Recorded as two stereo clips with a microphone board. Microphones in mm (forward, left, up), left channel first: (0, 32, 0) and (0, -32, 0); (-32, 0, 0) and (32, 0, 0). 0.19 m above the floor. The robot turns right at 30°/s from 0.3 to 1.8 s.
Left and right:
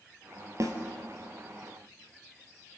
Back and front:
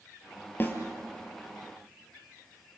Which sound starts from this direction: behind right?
A snare drum, at 0.6 s.